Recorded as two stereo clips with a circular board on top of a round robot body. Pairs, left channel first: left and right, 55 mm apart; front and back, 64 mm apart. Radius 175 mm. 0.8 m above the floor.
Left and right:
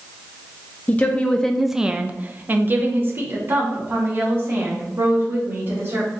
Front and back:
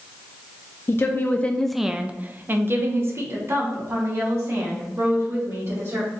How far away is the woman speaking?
About 0.7 m.